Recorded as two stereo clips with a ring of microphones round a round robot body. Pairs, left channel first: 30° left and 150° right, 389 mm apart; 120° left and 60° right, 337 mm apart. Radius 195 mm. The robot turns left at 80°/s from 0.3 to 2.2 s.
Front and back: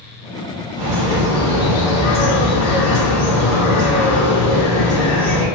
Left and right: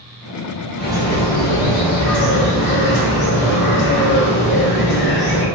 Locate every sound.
0.8 s a bird: 175° left, 1.3 m; by 5.5 s 60° left, 1.3 m